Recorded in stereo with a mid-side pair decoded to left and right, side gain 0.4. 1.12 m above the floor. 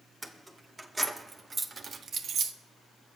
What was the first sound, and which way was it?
Keys jangling, 15° right.